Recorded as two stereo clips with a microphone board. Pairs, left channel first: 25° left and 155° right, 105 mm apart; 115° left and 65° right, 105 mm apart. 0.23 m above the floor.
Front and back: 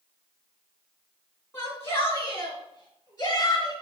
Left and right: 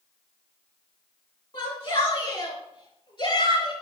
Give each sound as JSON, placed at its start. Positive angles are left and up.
{"t": 1.5, "sound": "a shout", "azimuth_deg": 85, "distance_m": 3.5}